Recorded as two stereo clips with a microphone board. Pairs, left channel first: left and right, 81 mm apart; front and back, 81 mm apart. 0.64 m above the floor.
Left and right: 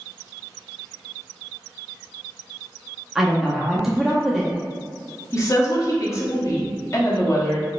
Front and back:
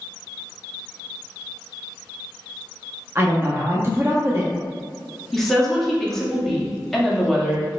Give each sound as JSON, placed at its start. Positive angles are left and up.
{"t": 3.1, "sound": "a woman speaking", "azimuth_deg": -170, "distance_m": 0.5}
{"t": 5.3, "sound": "a woman speaking", "azimuth_deg": 85, "distance_m": 0.8}